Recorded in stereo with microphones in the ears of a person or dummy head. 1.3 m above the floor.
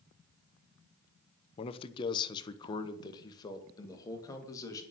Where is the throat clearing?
I don't hear throat clearing.